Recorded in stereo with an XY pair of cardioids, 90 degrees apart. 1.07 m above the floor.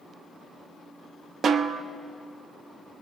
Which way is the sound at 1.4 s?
60° right.